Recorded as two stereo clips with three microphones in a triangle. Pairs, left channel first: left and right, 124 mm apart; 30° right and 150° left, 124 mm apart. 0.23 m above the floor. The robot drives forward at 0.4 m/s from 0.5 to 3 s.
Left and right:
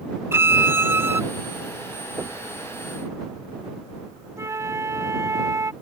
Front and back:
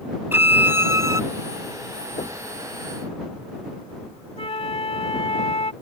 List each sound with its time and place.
0.3 s a violin: 145° right; by 1.2 s 155° right
2.2 s knocking: 35° right
4.4 s a flute: 30° right